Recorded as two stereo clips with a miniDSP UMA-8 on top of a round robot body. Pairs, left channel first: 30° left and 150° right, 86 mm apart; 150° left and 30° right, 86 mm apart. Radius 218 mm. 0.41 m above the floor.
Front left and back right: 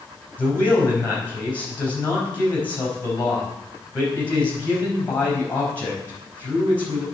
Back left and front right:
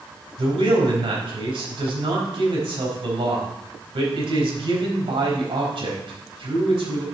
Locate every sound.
0.4 s a man speaking: 40° right, 4.5 m